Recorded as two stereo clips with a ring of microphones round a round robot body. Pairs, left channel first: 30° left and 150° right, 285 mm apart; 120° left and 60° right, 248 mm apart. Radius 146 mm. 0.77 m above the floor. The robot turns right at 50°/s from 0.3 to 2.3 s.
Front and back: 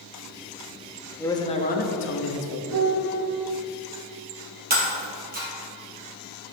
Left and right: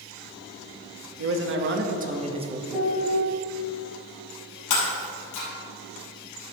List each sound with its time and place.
1.2 s a man speaking: 50° right, 1.1 m; by 2.6 s 5° left, 1.1 m
2.7 s a piano: 150° right, 2.5 m
4.7 s breaking glass: 150° left, 2.5 m